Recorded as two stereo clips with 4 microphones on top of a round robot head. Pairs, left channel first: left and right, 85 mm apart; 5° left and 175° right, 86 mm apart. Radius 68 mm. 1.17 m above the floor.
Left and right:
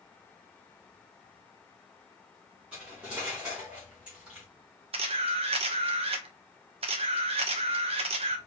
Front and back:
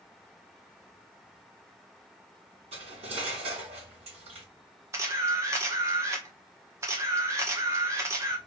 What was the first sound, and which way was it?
Cutlery clinking, 170° right.